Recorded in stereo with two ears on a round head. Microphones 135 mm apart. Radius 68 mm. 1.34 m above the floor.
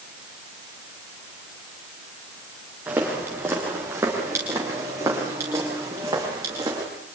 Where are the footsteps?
15° right (ahead or behind), 8.5 m; by 6.8 s 25° right (ahead or behind), 13 m.